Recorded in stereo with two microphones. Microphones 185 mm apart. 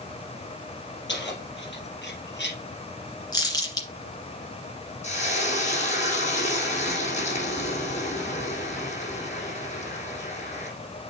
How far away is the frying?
About 4 m.